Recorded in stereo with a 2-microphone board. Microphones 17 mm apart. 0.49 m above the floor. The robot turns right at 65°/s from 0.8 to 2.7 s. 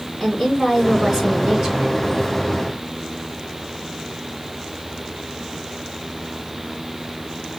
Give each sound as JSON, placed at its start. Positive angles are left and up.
{"t": 0.2, "sound": "a woman speaking", "azimuth_deg": 160, "distance_m": 3.5}